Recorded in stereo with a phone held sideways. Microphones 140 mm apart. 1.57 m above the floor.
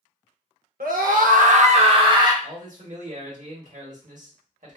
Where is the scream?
85° right, 0.7 m; by 2.3 s 25° right (ahead or behind), 0.7 m.